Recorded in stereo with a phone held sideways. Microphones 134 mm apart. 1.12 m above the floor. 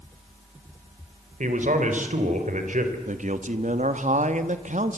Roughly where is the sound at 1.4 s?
Right.